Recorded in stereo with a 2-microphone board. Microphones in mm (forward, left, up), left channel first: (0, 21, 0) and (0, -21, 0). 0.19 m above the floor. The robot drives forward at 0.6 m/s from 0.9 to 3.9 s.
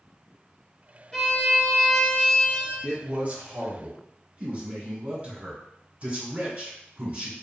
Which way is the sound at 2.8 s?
40° right (ahead or behind).